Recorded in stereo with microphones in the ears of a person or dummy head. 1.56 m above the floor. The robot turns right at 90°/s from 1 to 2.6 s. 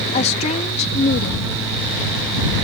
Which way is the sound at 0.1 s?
40° left.